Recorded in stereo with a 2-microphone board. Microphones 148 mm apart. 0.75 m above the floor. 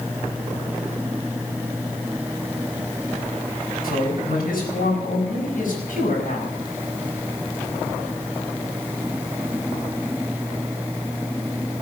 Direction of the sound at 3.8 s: 75° left (ahead or behind).